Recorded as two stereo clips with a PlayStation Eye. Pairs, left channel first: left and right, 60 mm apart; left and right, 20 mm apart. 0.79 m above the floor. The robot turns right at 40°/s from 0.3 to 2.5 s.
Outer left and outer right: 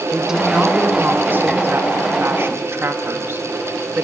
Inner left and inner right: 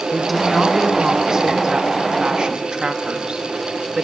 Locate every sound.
0.1 s a woman speaking: 170° right, 1.4 m; by 4.0 s 80° right, 1.4 m